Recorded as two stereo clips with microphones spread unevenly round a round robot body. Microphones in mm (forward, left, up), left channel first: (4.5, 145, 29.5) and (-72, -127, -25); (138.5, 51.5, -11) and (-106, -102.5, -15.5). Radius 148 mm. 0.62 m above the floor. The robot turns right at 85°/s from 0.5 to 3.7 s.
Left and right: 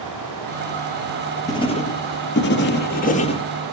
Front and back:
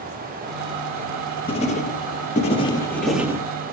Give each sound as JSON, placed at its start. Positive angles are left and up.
{"t": 1.5, "sound": "writing", "azimuth_deg": -15, "distance_m": 1.0}